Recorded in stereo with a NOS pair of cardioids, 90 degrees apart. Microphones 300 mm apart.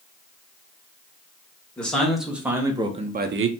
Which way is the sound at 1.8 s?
5° left.